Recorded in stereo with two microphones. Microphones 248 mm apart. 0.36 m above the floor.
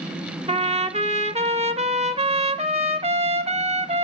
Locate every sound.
0.5 s a trumpet: 25° right (ahead or behind), 0.9 m